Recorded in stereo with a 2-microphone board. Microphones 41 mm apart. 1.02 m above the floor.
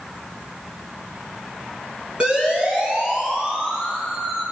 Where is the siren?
25° right (ahead or behind), 10 m; by 4.4 s 20° right (ahead or behind), 10 m.